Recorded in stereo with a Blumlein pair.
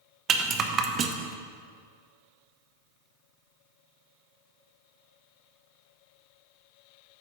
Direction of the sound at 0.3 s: 25° right.